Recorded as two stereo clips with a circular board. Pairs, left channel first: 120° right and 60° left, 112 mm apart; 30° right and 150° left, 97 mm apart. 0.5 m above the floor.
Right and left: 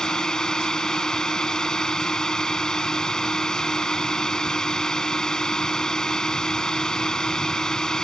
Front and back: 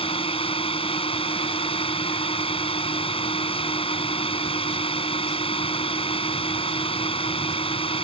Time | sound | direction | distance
0.0 | a drone | 35° right | ?